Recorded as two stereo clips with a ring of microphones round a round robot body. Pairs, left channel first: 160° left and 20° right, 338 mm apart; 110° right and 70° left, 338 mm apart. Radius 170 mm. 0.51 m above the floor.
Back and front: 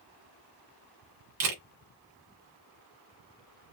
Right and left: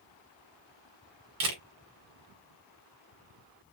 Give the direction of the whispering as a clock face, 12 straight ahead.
No whispering in this recording.